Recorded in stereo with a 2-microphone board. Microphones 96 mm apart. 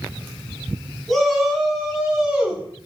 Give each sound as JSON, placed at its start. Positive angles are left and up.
{"t": 1.1, "sound": "a shout", "side_deg": 0, "distance_m": 8.0}